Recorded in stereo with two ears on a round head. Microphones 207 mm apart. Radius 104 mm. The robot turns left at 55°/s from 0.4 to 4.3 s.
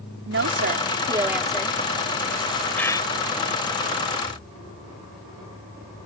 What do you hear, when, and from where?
0.3 s a woman speaking: 120° right; by 1.8 s 160° left
2.8 s a bird: 5° left (ahead or behind); by 3.1 s 25° left (ahead or behind)